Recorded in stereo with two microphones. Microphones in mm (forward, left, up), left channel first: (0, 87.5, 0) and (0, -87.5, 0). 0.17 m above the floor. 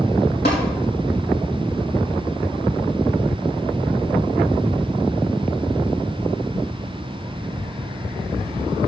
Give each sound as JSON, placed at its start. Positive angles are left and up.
{"t": 0.5, "sound": "tapping", "side_deg": 80, "distance_m": 4.5}